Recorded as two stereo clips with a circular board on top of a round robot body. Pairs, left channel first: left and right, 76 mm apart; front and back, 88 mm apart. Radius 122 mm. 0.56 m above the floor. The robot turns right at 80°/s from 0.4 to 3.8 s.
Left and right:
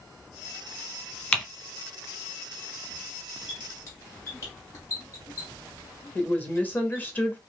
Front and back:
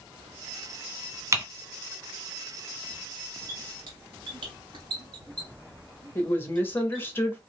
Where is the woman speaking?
45° left, 1.1 m.